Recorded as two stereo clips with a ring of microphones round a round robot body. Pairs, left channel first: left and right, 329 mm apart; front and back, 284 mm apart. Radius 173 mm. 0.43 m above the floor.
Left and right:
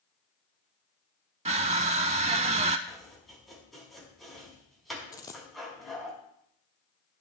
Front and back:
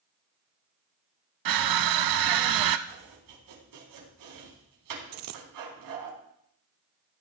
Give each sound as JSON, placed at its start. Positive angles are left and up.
{"t": 1.4, "sound": "crushing", "azimuth_deg": -160, "distance_m": 0.5}
{"t": 2.9, "sound": "chopping", "azimuth_deg": 180, "distance_m": 4.0}
{"t": 5.1, "sound": "a dropped coin", "azimuth_deg": 170, "distance_m": 0.6}